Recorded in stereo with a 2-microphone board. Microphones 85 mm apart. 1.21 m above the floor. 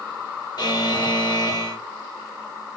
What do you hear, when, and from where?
0.6 s a buzzer: 55° left (ahead or behind), 0.8 m